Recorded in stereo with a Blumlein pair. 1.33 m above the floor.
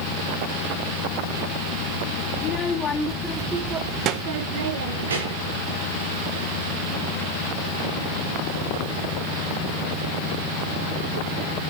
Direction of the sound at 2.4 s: 35° left.